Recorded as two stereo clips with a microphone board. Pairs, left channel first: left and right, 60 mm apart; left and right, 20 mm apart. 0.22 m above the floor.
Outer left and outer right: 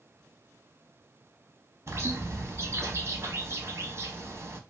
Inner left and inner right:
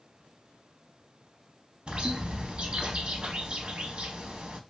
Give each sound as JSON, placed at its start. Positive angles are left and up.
{"t": 1.9, "sound": "a bird", "side_deg": -50, "distance_m": 0.6}